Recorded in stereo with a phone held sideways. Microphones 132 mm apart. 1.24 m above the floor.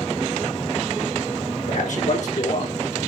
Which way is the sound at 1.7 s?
75° left (ahead or behind).